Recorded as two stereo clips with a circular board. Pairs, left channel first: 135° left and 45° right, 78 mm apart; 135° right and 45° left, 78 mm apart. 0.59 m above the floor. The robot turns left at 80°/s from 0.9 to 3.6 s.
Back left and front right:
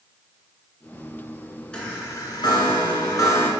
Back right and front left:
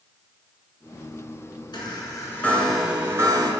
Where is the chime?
150° right, 1.5 m; by 3.5 s 70° left, 1.5 m.